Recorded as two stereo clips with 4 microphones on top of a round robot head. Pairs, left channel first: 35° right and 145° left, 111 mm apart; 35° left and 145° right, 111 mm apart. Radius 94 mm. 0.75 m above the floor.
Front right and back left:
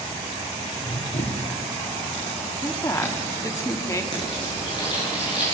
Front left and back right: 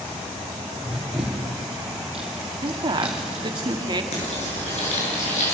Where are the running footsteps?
60° right, 4.5 m; by 3.6 s 65° right, 6.5 m.